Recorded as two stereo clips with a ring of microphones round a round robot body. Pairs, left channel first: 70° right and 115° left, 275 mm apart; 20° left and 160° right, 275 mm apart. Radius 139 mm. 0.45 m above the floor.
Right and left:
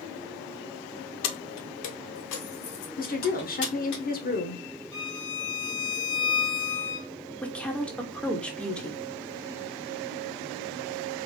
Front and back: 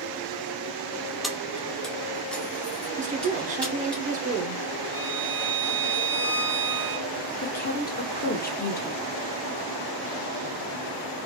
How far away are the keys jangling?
About 0.6 m.